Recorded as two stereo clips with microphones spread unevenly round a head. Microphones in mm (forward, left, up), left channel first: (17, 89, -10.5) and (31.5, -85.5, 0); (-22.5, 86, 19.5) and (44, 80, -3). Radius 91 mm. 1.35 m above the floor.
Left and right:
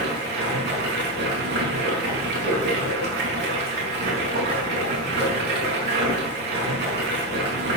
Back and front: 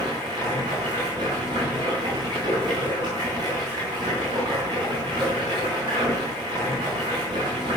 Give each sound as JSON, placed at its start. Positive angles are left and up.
{"t": 0.0, "sound": "running water", "azimuth_deg": -60, "distance_m": 5.5}